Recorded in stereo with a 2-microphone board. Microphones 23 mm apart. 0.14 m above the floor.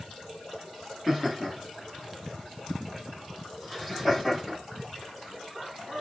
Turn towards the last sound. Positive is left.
turn(degrees=0)  # may be behind; listen again after turning